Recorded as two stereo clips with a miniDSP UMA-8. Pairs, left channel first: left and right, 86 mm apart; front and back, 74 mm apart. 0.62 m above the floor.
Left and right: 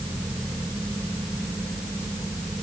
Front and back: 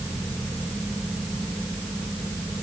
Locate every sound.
Only background noise.